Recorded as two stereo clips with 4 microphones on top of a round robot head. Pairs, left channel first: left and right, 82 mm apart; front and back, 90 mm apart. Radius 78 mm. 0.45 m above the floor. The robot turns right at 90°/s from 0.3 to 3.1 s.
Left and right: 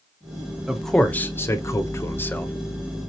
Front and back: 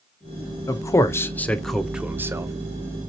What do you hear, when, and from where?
0.7 s a man speaking: 10° right, 1.0 m; by 2.5 s 155° left, 1.0 m